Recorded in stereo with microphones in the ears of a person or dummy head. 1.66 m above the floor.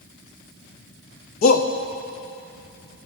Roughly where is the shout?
Left.